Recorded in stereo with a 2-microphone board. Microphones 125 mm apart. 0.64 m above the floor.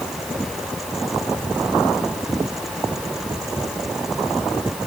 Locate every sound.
Only background noise.